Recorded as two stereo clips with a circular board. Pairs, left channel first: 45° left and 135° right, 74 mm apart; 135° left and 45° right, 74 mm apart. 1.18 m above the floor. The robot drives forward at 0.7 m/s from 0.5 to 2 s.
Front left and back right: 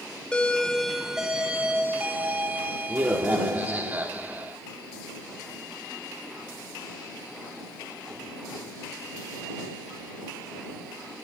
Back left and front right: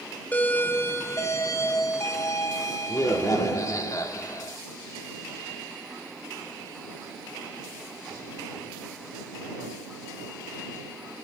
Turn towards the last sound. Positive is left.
turn(degrees=160)